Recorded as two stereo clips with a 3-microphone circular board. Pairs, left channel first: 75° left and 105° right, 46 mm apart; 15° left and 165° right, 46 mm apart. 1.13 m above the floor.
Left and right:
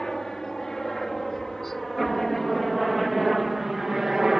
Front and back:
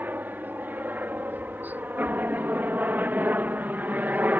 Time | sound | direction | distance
0.0 | a helicopter | 155° left | ?